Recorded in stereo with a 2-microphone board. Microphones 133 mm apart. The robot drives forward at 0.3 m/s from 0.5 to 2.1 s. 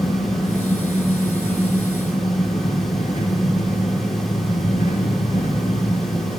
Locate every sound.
0.0 s an engine running: 70° left (ahead or behind), 3 m; by 6.4 s 65° left (ahead or behind), 3 m